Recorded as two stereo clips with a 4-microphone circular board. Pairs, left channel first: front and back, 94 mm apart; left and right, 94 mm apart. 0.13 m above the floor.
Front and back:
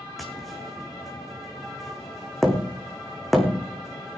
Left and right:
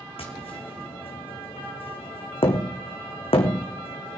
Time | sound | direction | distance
0.2 | tapping | 90° left | 2 m